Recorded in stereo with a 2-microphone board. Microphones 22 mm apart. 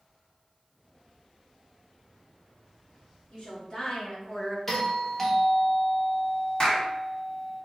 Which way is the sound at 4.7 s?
15° left (ahead or behind).